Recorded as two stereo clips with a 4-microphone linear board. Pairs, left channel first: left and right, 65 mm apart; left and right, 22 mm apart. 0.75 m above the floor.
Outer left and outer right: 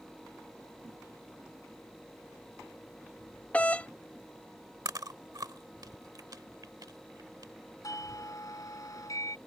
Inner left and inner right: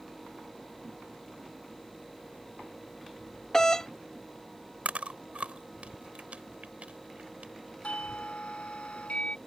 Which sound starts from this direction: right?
Chewing, at 4.8 s.